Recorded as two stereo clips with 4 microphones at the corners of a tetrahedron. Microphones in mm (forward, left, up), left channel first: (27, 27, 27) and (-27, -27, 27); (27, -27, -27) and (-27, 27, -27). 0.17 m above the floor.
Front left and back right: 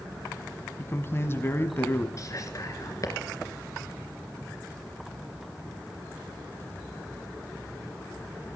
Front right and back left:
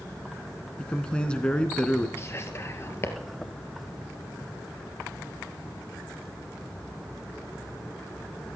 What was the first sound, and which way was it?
A man speaking, 20° left.